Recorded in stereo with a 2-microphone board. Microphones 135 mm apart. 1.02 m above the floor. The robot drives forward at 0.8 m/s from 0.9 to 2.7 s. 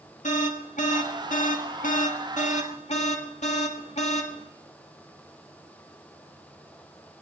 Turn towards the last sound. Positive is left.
turn(degrees=60)  # may be behind; listen again after turning